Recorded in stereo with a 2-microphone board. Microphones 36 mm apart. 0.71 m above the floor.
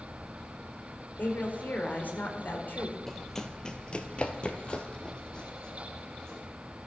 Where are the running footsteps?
5° left (ahead or behind), 1.1 m; by 6.4 s 20° left (ahead or behind), 2.5 m.